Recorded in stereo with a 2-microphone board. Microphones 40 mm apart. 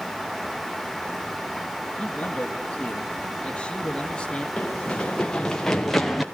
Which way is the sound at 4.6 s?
25° left (ahead or behind).